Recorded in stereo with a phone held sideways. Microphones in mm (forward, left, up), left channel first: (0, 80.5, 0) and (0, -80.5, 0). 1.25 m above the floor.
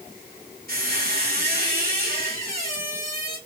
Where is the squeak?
70° right (ahead or behind), 1.9 m.